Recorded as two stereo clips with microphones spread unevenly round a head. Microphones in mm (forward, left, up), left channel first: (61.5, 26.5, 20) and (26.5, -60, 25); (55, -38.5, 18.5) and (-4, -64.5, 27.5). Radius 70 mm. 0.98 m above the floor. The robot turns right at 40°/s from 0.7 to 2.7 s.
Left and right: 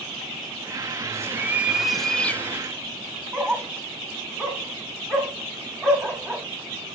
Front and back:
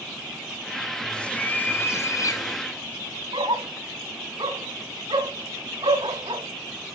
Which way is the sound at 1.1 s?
55° right.